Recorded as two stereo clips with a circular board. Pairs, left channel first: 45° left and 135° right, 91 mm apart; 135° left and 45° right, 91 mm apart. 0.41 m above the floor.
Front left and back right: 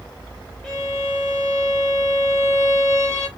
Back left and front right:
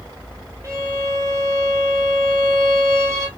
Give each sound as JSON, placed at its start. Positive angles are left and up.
{"t": 0.6, "sound": "a violin", "azimuth_deg": -35, "distance_m": 1.2}